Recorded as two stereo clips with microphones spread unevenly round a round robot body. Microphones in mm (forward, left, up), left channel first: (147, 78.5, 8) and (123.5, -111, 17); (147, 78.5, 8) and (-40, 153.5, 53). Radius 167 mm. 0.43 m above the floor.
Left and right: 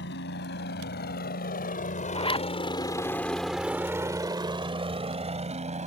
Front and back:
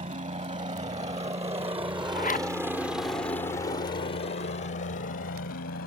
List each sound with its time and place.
0.0 s a helicopter: 110° left; by 5.9 s 50° right
2.1 s a zipper: 20° left